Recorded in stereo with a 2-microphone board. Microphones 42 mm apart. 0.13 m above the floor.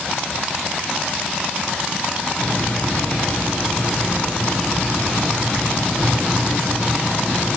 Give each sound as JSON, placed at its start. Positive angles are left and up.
{"t": 2.4, "sound": "a hiss", "side_deg": 40, "distance_m": 5.5}